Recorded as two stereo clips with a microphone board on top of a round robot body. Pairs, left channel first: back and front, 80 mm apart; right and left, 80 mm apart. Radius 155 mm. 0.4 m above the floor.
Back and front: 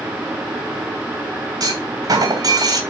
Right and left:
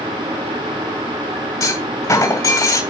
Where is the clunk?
45° right, 3 m.